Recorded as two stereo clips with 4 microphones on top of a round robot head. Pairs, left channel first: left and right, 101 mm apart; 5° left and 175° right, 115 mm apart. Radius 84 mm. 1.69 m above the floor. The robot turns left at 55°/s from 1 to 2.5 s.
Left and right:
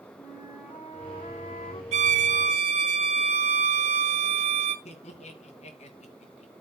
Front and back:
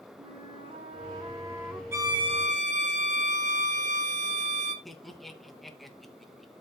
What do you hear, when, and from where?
0.2 s a flute: 145° left, 3.5 m; by 1.8 s 100° left, 3.5 m
1.9 s a violin: 100° right, 1.3 m; by 4.8 s 130° right, 1.3 m
4.8 s laughter: 95° left, 2.5 m